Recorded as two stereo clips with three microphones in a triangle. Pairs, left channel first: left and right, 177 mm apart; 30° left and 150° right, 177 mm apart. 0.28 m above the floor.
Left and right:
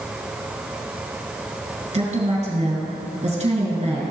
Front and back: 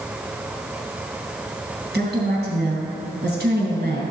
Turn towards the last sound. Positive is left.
turn(degrees=-140)